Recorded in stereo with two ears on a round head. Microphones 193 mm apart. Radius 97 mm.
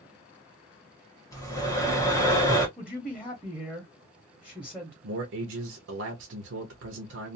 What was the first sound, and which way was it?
Breathing, 15° left (ahead or behind).